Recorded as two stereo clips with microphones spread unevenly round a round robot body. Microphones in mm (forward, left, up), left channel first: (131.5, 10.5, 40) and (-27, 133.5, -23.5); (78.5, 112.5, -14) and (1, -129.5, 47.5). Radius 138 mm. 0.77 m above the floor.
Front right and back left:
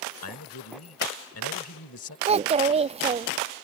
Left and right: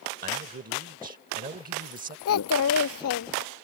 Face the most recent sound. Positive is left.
turn(degrees=90)